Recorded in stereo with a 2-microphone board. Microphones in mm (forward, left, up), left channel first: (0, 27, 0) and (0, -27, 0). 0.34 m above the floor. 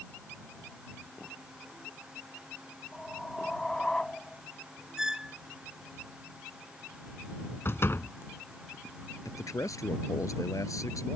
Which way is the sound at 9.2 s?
75° left (ahead or behind).